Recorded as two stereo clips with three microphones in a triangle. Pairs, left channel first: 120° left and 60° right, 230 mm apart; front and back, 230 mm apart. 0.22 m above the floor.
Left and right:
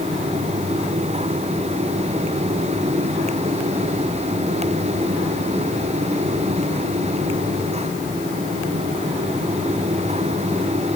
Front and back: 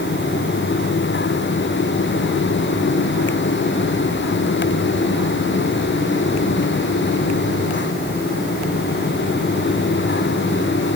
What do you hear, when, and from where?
Only background noise.